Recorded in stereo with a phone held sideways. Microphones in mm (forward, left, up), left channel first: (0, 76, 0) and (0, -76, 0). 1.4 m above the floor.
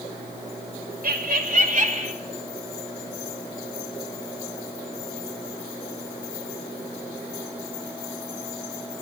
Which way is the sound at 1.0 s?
70° right (ahead or behind).